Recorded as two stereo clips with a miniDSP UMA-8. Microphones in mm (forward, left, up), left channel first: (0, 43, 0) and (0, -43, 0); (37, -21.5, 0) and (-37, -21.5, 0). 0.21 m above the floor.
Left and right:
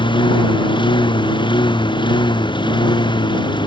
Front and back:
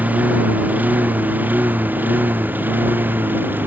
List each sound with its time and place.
0.0 s a lawn mower: 110° left; by 3.7 s 115° left